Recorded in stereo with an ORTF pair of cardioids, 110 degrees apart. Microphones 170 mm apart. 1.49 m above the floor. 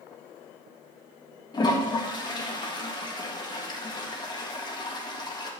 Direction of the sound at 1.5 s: 25° left.